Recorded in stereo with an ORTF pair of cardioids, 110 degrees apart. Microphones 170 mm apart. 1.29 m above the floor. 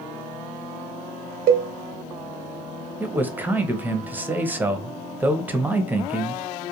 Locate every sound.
1.5 s a cowbell: 65° right, 0.5 m
3.0 s a man speaking: 10° right, 0.6 m